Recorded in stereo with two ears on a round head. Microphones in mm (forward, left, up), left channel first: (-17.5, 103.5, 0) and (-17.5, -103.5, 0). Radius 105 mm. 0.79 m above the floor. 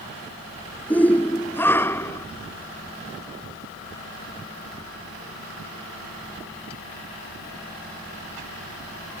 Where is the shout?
5° left (ahead or behind); by 2.3 s 10° left (ahead or behind).